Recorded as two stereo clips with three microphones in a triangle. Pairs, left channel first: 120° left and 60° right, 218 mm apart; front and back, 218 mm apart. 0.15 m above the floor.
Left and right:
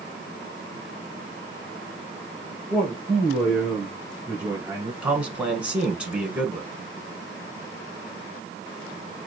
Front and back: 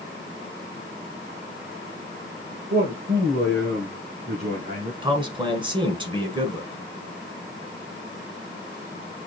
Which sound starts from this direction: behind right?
A man speaking, at 5.0 s.